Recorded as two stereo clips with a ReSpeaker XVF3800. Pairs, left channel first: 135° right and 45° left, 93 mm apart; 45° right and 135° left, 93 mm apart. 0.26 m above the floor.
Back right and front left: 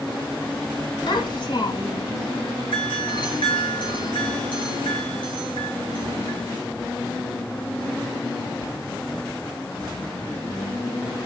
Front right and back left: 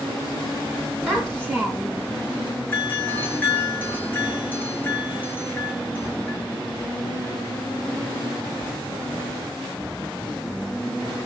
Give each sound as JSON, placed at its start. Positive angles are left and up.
{"t": 1.1, "sound": "a child speaking", "azimuth_deg": -125, "distance_m": 1.3}
{"t": 2.7, "sound": "a doorbell", "azimuth_deg": -110, "distance_m": 4.0}